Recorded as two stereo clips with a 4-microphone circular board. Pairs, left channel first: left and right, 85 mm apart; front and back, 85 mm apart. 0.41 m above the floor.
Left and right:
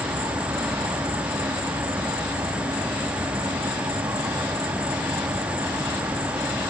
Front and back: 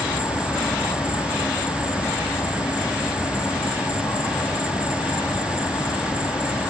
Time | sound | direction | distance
0.0 | an insect | 60° right | 4 m